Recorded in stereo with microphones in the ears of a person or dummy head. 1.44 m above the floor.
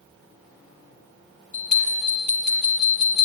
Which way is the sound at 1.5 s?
50° right (ahead or behind).